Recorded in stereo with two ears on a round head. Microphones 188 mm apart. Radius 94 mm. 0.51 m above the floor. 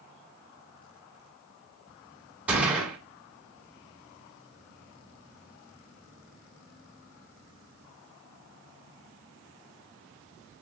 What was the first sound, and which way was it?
A gunshot, 5° right (ahead or behind).